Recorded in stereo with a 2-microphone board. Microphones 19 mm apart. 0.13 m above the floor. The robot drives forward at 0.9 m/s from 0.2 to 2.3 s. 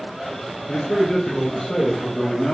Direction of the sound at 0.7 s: 45° left (ahead or behind).